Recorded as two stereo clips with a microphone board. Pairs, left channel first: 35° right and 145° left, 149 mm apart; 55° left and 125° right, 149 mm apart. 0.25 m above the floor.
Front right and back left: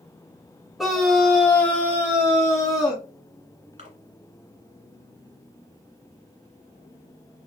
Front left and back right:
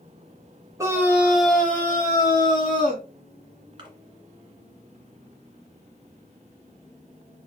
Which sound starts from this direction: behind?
A splash, at 3.8 s.